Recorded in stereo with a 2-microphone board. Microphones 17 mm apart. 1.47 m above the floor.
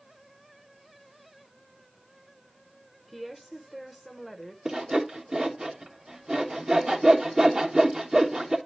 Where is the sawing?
50° right (ahead or behind), 1.1 m.